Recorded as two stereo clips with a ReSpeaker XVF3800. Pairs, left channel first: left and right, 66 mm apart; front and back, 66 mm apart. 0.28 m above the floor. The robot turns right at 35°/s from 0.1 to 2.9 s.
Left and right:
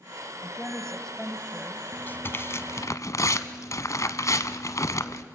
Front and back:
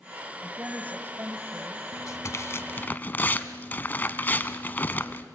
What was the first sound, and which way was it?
A woman speaking, 145° left.